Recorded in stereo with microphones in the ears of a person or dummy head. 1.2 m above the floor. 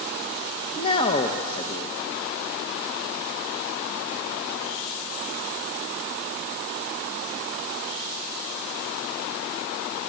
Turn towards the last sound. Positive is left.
turn(degrees=30)  # may be behind; listen again after turning